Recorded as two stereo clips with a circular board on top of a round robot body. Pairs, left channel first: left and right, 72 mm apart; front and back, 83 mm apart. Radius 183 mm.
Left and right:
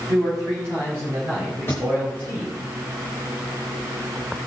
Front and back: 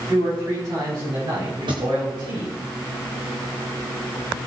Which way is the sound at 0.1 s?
140° right.